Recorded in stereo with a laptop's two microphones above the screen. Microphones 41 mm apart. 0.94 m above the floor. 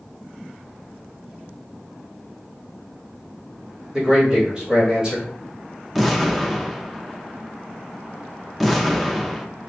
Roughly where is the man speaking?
Right.